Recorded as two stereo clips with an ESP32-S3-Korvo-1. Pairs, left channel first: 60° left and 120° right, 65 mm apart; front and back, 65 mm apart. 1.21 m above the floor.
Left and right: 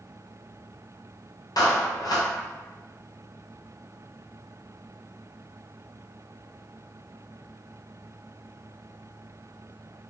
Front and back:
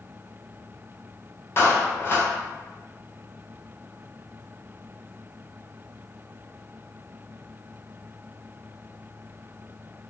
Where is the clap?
50° left, 0.9 m.